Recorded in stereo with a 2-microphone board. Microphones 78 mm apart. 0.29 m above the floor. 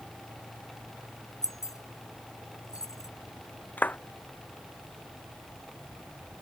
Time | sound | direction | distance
1.4 | keys jangling | 50° left (ahead or behind) | ?
3.8 | a clap | 20° left (ahead or behind) | ?